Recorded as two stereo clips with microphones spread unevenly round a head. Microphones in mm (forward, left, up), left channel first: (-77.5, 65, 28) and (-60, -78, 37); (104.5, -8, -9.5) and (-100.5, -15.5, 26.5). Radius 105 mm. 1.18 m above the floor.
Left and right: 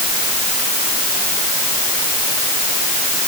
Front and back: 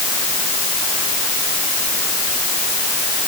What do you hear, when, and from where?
Only background noise.